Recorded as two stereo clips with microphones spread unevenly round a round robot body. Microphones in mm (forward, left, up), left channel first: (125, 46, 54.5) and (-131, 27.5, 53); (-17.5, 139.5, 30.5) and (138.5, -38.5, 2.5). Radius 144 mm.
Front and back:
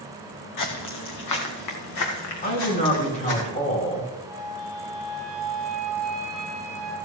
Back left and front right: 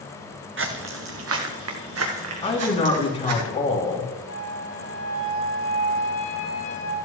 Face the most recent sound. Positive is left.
turn(degrees=95)